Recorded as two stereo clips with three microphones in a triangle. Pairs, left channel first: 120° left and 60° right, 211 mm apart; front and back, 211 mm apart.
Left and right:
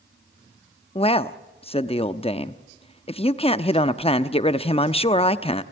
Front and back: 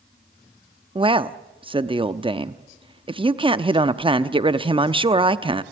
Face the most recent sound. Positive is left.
turn(degrees=145)